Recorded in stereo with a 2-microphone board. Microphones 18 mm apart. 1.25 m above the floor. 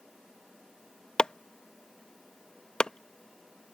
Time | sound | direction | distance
1.2 | chopping | 60° left (ahead or behind) | ?